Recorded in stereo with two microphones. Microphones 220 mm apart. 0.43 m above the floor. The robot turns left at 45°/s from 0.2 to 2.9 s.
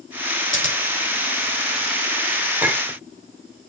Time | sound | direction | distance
0.5 | scissors | 65° left (ahead or behind) | 1.7 m
2.6 | a clink | 5° right (ahead or behind) | 0.9 m